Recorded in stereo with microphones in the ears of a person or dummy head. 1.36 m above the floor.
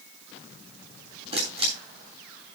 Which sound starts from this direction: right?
A camera shutter, at 1.3 s.